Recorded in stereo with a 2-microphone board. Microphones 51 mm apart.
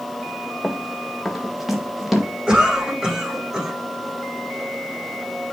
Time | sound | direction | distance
0.6 | running footsteps | centre (ahead or behind) | 2 m
2.5 | a cough | 15° right (ahead or behind) | 8 m